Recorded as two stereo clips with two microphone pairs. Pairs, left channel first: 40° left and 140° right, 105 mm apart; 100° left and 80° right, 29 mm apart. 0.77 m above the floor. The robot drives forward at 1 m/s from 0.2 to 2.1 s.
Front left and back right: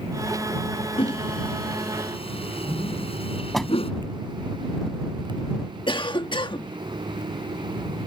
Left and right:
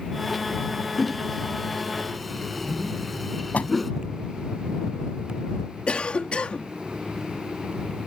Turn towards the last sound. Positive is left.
turn(degrees=65)